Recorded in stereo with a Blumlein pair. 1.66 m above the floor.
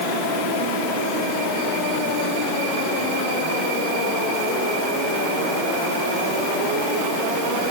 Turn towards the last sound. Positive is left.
No sound to turn to.